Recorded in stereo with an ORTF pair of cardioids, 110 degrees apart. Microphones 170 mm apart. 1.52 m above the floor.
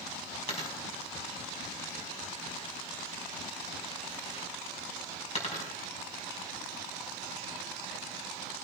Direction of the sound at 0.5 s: 40° left.